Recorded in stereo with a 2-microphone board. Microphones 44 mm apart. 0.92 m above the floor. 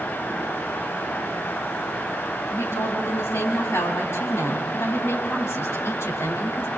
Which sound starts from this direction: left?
A woman speaking, at 2.5 s.